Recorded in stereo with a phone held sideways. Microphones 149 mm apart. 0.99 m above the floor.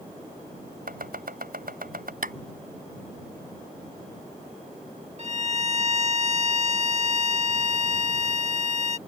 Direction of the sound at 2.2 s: 70° right (ahead or behind).